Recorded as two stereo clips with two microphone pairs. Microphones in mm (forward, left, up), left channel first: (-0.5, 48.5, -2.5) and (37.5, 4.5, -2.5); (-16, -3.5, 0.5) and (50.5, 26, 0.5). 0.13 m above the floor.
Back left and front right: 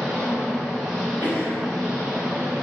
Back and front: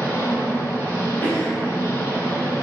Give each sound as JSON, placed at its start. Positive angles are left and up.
{"t": 0.0, "sound": "an engine running", "azimuth_deg": -140, "distance_m": 0.9}
{"t": 1.2, "sound": "a cough", "azimuth_deg": 150, "distance_m": 1.5}